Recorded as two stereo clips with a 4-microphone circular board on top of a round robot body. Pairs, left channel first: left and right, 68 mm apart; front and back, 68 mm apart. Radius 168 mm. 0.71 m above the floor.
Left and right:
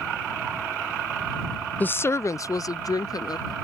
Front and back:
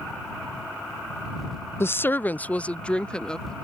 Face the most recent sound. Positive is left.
turn(degrees=80)